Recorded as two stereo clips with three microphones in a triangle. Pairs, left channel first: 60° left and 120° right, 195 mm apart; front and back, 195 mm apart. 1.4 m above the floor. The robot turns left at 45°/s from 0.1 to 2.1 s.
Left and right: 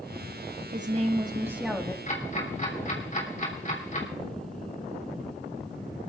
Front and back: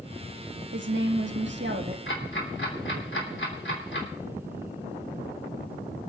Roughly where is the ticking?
Ahead.